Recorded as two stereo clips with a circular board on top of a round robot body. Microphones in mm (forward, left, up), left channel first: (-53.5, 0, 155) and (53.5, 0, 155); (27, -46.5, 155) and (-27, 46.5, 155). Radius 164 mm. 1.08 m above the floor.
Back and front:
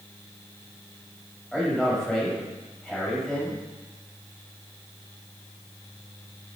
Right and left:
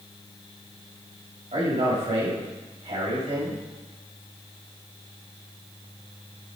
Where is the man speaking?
95° left, 6 m.